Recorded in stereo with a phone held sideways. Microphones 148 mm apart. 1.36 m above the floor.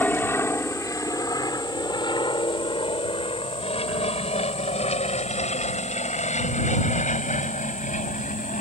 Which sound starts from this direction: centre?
An aircraft, at 0.0 s.